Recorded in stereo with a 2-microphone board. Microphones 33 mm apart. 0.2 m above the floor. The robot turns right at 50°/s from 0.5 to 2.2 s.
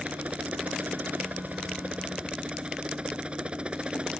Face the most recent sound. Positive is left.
turn(degrees=-40)